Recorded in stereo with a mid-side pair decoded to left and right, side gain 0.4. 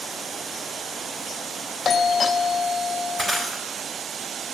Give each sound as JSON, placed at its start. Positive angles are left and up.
{"t": 1.9, "sound": "a doorbell", "azimuth_deg": 45, "distance_m": 0.6}
{"t": 3.2, "sound": "breaking glass", "azimuth_deg": -40, "distance_m": 4.0}